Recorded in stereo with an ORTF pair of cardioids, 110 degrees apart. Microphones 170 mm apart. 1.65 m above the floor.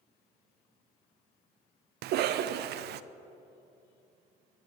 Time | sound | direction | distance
2.0 | a cough | 70° right | 0.6 m